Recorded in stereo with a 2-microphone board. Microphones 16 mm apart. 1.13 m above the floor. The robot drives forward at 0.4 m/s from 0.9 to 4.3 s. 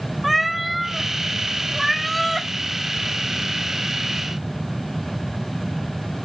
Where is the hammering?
I don't hear hammering.